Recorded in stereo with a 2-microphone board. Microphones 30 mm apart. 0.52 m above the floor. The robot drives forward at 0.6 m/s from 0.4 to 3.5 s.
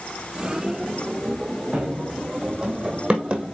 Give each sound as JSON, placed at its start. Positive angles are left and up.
{"t": 1.7, "sound": "running footsteps", "side_deg": -35, "distance_m": 3.0}